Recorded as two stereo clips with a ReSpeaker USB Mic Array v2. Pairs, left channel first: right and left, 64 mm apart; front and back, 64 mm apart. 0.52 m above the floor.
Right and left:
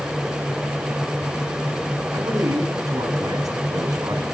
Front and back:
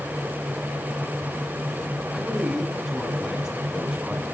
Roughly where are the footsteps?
No footsteps in this recording.